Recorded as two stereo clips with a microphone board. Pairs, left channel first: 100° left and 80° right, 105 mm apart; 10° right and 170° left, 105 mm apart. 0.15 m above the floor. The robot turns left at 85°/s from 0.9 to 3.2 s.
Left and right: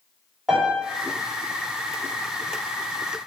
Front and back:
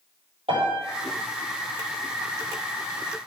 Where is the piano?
170° right, 7 m.